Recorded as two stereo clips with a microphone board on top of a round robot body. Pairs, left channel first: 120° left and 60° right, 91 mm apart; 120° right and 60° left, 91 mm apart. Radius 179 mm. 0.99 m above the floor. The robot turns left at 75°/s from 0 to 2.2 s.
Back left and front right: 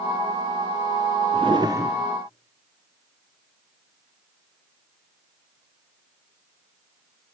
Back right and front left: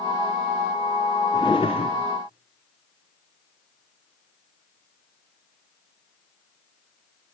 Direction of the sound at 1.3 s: 75° right.